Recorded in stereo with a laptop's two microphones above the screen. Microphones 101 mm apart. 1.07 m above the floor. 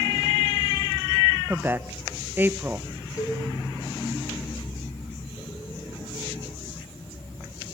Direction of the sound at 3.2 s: 35° left (ahead or behind).